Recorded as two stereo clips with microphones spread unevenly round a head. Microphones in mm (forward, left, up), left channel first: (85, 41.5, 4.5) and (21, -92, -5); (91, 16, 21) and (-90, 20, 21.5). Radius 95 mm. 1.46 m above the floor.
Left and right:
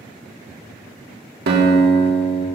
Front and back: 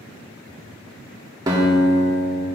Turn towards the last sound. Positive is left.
turn(degrees=-110)